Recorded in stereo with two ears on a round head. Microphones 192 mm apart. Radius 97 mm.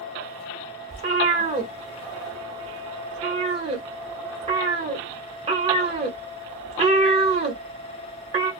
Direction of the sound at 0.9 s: 25° right (ahead or behind).